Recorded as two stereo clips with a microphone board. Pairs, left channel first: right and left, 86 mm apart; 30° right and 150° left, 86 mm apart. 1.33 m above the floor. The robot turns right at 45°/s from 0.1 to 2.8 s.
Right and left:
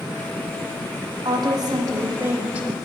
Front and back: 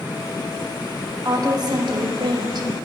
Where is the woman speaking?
105° left, 0.8 m; by 2.7 s 170° left, 0.8 m.